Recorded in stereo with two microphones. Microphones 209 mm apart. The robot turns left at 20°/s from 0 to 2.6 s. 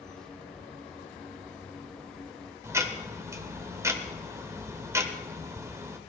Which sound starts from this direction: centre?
Ticking, at 2.6 s.